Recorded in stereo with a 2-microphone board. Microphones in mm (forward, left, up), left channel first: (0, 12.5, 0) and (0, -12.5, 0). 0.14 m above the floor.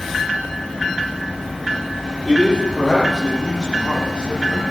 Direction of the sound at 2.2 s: 35° left (ahead or behind).